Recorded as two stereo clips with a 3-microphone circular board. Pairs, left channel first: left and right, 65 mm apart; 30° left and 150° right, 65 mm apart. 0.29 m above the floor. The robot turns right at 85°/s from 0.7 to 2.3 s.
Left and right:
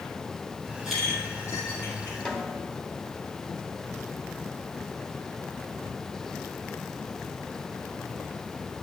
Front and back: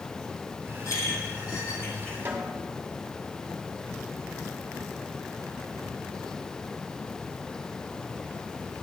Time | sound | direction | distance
0.8 | a clink | 10° right | 5.5 m
2.2 | a snare drum | 160° left | 2 m